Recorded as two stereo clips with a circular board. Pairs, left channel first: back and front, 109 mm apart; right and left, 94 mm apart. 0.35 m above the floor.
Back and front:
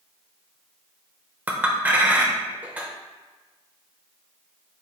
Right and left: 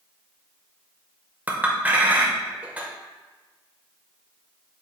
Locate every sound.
1.5 s a clink: 50° left, 0.5 m